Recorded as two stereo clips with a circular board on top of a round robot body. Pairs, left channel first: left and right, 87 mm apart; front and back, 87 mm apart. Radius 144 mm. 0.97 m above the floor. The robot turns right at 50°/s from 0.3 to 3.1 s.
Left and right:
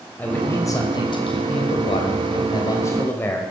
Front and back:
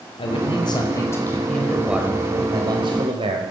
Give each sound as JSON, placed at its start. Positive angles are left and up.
{"t": 0.2, "sound": "a man speaking", "azimuth_deg": 20, "distance_m": 4.5}